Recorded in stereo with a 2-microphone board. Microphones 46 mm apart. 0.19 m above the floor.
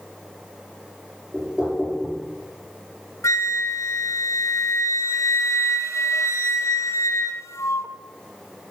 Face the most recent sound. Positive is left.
turn(degrees=85)